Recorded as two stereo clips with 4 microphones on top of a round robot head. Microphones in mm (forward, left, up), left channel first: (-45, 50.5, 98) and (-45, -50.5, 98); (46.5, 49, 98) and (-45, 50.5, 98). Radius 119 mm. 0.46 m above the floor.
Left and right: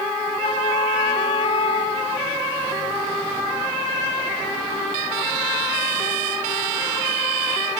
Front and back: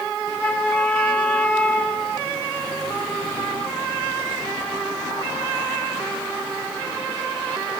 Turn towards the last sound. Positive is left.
turn(degrees=75)